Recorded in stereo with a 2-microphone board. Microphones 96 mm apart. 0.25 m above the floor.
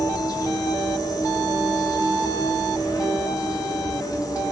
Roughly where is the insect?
Left.